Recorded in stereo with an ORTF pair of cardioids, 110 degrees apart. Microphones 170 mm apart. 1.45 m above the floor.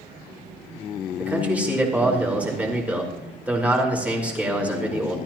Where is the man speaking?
10° right, 4.5 m.